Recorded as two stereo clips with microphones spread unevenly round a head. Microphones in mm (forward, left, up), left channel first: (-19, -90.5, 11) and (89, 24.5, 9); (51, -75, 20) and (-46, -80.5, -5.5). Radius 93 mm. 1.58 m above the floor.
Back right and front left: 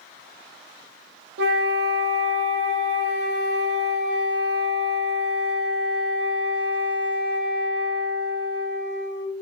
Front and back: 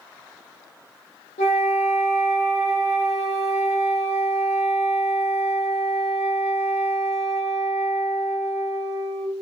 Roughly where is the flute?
Ahead left.